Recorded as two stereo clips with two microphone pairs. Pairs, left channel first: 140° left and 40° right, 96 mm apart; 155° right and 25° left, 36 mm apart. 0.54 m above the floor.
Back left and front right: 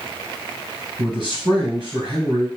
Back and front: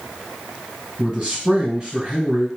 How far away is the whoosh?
I don't hear a whoosh.